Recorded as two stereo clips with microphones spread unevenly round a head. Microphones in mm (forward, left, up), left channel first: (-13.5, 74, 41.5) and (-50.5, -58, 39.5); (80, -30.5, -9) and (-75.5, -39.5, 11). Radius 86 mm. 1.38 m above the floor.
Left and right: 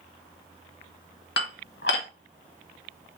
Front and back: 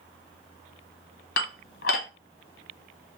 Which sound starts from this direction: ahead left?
Dishes clattering, at 1.4 s.